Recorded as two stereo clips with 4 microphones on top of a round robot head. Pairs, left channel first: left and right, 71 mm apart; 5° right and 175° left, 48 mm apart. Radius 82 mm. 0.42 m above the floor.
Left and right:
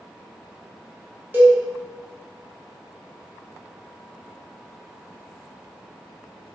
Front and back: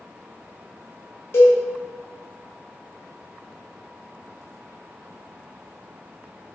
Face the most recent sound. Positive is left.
turn(degrees=-30)